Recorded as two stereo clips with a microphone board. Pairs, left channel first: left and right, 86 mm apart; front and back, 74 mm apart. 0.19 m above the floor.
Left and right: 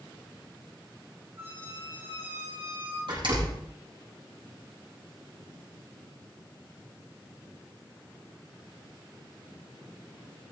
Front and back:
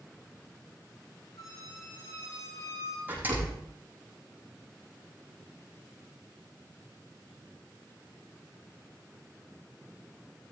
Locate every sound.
1.4 s a squeak: 30° right, 6.5 m
3.1 s a door slam: 115° right, 6 m